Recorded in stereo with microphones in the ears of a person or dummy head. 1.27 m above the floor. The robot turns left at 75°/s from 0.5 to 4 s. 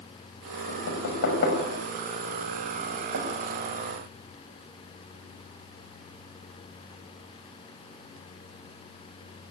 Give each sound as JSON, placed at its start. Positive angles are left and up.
{"t": 0.7, "sound": "knocking", "side_deg": 65, "distance_m": 6.5}